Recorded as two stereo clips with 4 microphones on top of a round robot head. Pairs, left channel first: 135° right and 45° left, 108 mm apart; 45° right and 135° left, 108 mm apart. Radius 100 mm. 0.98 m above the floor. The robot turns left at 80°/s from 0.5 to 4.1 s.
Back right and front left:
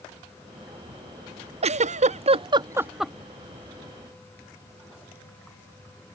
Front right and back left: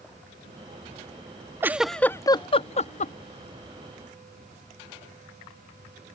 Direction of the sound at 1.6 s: 70° left.